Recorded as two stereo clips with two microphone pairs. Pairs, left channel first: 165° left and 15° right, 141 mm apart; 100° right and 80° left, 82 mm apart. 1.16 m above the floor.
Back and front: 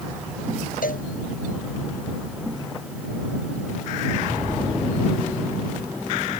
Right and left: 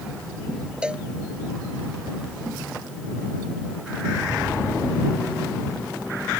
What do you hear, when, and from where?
0.8 s a cowbell: 155° left